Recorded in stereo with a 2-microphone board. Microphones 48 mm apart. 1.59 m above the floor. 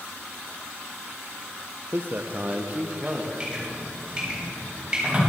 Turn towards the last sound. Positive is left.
turn(degrees=-15)  # may be behind; listen again after turning